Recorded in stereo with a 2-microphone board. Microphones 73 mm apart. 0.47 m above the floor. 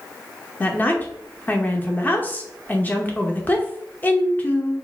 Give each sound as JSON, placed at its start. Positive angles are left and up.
{"t": 0.6, "sound": "a woman speaking", "side_deg": 25, "distance_m": 0.8}